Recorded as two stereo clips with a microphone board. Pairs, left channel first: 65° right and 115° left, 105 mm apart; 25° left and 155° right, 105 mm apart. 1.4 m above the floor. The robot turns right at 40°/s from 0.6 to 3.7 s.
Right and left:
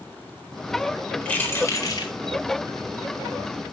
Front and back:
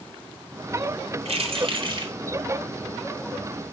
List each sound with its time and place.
1.2 s keys jangling: 145° right, 4 m; by 2.1 s 110° right, 4 m